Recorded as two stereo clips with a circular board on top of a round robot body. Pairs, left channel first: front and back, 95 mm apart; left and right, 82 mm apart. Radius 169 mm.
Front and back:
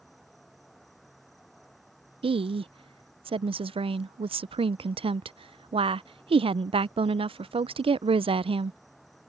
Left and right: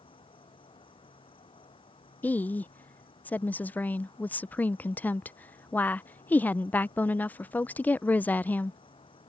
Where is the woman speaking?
160° left.